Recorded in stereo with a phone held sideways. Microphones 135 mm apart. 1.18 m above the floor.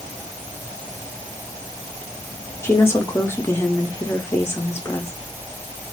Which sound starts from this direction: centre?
A woman speaking, at 2.6 s.